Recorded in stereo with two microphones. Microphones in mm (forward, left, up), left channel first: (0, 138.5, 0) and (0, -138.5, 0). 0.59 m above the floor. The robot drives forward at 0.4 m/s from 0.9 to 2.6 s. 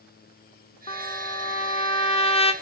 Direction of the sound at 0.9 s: 25° left (ahead or behind).